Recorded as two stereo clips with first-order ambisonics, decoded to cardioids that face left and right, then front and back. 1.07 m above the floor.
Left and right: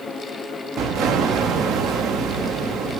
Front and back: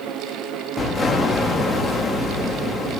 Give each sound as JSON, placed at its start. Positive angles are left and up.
{"t": 0.8, "sound": "an explosion", "azimuth_deg": -70, "distance_m": 0.8}